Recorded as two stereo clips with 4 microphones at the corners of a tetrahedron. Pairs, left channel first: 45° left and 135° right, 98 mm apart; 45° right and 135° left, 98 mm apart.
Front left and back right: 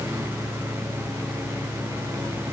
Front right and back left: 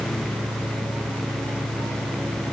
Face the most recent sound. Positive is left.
No sound to turn to.